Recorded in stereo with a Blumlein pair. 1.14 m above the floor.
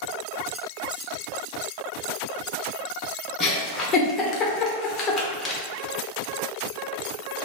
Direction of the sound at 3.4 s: 25° left.